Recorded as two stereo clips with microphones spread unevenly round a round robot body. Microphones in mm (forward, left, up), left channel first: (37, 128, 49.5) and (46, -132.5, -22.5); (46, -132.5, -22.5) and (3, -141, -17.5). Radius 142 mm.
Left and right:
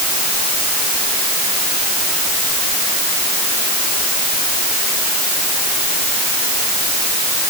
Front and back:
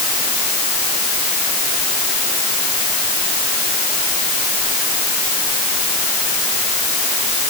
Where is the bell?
I don't hear a bell.